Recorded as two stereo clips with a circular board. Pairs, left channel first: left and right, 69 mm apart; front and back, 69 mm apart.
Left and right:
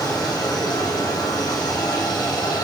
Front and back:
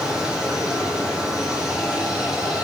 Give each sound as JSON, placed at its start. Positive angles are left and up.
{"t": 0.0, "sound": "running water", "azimuth_deg": 100, "distance_m": 4.0}